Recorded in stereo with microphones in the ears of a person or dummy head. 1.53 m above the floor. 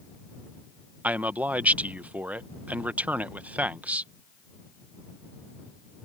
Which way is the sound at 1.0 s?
5° right (ahead or behind).